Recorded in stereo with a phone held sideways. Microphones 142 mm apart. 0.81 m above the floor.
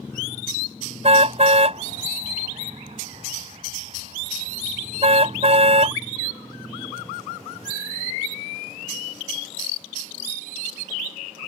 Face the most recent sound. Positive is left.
turn(degrees=-50)  # may be behind; listen again after turning